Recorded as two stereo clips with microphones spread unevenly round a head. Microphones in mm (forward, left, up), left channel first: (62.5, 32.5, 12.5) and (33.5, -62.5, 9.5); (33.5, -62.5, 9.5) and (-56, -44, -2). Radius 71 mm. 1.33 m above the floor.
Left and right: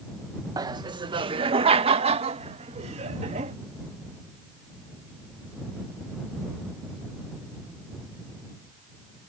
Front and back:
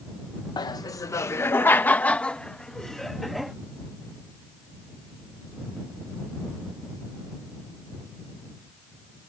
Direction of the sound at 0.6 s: 55° right.